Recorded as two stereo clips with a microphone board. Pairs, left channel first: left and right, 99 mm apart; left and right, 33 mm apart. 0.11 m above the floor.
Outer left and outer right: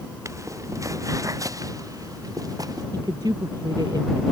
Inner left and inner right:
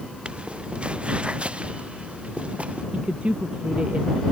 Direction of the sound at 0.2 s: 30° right (ahead or behind).